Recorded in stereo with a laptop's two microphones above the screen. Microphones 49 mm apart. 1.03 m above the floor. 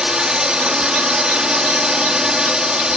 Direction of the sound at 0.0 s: 15° right (ahead or behind).